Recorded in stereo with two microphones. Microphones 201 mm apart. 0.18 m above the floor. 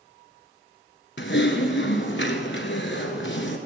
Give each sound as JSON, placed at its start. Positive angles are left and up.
{"t": 1.2, "sound": "typing on a keyboard", "side_deg": 65, "distance_m": 1.2}